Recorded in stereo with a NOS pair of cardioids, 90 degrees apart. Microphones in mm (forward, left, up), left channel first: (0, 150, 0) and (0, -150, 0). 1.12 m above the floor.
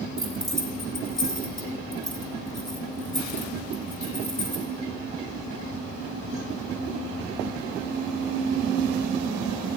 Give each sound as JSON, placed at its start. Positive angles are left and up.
{"t": 0.2, "sound": "keys jangling", "azimuth_deg": 0, "distance_m": 2.0}